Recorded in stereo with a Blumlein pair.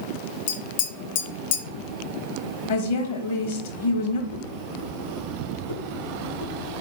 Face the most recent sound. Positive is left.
turn(degrees=65)